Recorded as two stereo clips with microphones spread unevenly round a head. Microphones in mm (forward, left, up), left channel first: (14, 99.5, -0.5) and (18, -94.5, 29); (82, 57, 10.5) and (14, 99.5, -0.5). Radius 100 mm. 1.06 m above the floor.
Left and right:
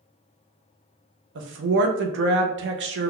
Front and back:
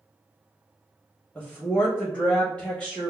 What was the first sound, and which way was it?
A woman speaking, 115° right.